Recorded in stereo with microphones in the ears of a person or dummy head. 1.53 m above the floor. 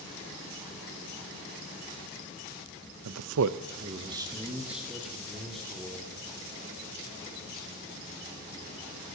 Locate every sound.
3.0 s a man speaking: 80° right, 0.6 m; by 6.0 s 5° left (ahead or behind), 2 m